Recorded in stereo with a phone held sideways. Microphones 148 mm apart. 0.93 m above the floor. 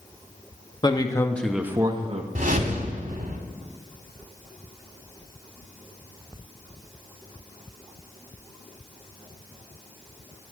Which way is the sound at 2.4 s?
65° right (ahead or behind).